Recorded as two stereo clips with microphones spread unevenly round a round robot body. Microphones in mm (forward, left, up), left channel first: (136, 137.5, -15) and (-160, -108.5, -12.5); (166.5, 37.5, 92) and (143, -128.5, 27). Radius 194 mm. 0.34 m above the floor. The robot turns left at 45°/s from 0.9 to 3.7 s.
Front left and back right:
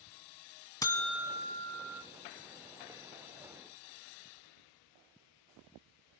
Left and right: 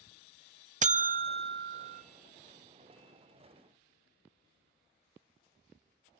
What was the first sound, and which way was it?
A buzzer, 40° right.